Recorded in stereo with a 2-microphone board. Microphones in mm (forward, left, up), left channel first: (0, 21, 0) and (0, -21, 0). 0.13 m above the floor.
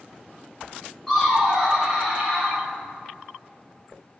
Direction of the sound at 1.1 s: 5° left (ahead or behind).